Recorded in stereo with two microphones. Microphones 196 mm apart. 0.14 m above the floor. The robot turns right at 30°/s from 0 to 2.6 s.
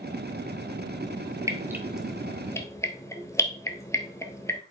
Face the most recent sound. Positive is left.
turn(degrees=15)  # may be behind; listen again after turning